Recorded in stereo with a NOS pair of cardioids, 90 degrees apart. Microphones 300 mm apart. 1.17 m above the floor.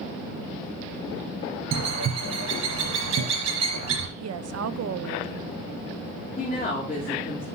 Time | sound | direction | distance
1.7 | a bird | 55° right | 4 m
4.2 | a woman speaking | 50° right | 0.8 m
6.4 | a woman speaking | 25° left | 3 m